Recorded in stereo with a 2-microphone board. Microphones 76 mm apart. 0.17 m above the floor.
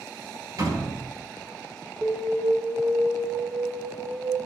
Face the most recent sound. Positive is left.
turn(degrees=-20)  # may be behind; listen again after turning